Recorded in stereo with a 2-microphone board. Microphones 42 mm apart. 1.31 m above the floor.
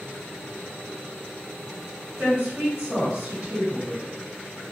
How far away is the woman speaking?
About 1.7 m.